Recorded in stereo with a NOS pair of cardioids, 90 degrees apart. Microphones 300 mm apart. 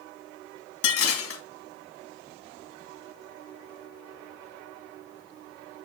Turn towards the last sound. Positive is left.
turn(degrees=50)